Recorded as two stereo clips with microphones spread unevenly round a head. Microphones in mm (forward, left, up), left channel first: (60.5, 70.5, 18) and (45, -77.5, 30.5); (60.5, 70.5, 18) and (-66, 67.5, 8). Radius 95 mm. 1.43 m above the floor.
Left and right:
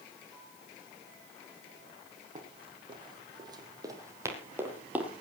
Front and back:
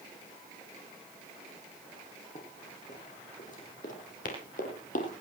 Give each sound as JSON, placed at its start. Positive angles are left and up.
{"t": 2.4, "sound": "running footsteps", "azimuth_deg": -50, "distance_m": 4.5}